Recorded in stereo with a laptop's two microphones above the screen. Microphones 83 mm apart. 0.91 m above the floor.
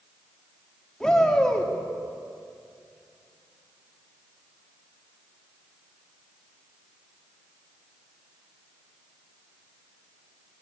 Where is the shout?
10° left (ahead or behind), 2 m.